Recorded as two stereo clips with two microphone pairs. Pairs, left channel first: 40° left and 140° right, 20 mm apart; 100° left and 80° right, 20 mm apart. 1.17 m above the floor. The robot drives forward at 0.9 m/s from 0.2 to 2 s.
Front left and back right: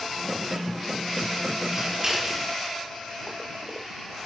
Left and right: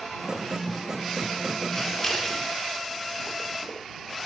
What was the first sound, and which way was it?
Scissors, 165° left.